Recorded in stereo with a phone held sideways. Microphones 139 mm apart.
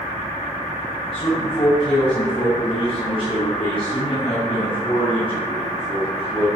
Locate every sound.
1.1 s a man speaking: 40° left (ahead or behind), 8.5 m